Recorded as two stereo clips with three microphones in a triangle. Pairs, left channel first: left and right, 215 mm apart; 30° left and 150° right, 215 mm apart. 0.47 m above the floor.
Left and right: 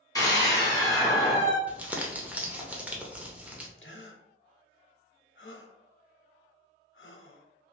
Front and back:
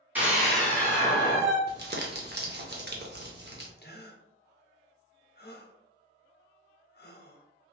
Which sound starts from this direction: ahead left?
A gasp, at 3.8 s.